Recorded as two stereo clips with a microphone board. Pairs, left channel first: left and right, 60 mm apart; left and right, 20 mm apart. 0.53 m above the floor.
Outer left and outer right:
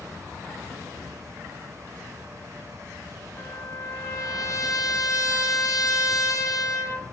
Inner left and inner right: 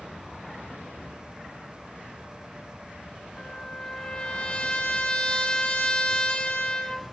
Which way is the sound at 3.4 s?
70° left (ahead or behind).